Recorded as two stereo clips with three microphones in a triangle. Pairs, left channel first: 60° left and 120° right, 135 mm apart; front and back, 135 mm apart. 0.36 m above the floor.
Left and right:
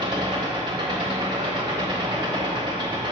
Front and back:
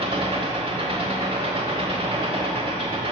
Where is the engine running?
155° right, 1.0 m.